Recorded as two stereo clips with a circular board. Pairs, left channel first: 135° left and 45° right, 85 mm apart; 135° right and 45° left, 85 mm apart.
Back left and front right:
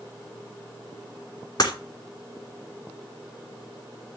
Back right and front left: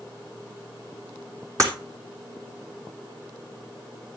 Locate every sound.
1.6 s breaking glass: 95° left, 3 m